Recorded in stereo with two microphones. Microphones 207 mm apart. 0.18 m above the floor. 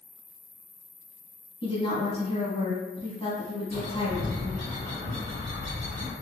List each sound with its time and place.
0.0 s an insect: 50° right (ahead or behind), 1.4 m
1.6 s a woman speaking: 25° left (ahead or behind), 1.0 m
3.7 s a bird: 50° right (ahead or behind), 1.6 m